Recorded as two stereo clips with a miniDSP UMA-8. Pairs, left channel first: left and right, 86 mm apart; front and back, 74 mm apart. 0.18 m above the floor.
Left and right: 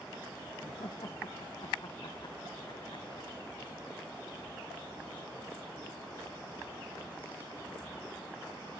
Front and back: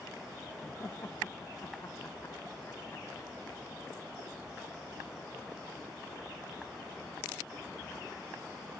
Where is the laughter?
55° left.